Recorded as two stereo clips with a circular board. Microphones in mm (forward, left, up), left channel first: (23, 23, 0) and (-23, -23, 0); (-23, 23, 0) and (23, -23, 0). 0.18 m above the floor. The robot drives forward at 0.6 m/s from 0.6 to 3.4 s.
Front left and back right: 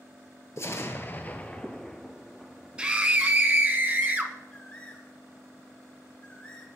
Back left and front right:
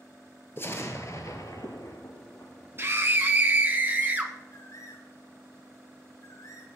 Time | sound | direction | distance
0.6 | an explosion | 85° left | 1.1 m
2.8 | a scream | 70° right | 1.3 m
4.5 | a bird | 115° left | 2.5 m